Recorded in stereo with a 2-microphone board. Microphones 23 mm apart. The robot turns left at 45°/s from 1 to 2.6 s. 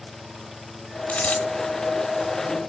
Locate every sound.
1.1 s a dropped coin: 85° left, 1.6 m; by 1.4 s 70° left (ahead or behind), 1.6 m